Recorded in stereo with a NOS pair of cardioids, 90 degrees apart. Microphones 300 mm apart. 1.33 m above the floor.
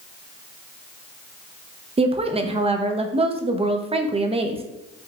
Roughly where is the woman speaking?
Ahead.